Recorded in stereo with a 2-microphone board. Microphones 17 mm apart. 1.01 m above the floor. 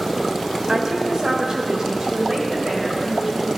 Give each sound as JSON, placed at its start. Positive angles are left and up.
{"t": 0.7, "sound": "a woman speaking", "side_deg": -50, "distance_m": 3.5}